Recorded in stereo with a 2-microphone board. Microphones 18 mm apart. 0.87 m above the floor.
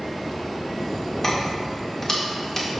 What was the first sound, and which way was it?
Keys jangling, 20° left (ahead or behind).